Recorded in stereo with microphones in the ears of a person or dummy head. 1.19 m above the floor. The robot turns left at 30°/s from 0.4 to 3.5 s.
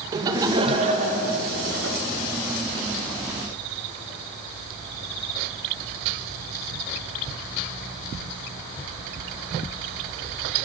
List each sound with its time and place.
0.1 s laughter: 20° right, 1.6 m; by 2.0 s 70° right, 1.6 m